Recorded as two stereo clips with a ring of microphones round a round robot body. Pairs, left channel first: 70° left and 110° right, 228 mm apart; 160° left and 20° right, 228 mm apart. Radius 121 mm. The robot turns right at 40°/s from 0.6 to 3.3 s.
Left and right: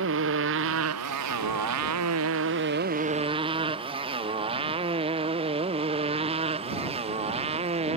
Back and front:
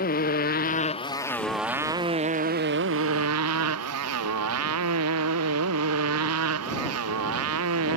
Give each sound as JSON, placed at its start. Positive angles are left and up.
{"t": 0.0, "sound": "a motorcycle", "azimuth_deg": -150}